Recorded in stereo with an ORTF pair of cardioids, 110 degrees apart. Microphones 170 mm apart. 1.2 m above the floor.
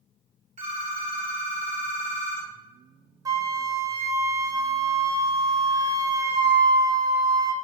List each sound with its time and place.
0.6 s a phone ringing: 45° right, 1.3 m
3.2 s a flute: 20° right, 0.5 m